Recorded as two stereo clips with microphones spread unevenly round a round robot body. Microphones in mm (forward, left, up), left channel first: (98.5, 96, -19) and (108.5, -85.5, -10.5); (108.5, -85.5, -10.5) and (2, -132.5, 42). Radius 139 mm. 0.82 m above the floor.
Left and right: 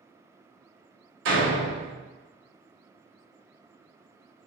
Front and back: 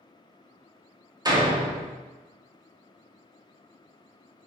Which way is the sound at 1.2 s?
95° right.